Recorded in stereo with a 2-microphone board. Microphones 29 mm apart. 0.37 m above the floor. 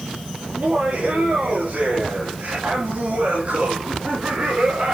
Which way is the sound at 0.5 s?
60° right (ahead or behind).